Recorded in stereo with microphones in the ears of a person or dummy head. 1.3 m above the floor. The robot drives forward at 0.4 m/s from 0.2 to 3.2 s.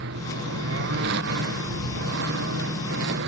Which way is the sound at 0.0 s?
70° right (ahead or behind).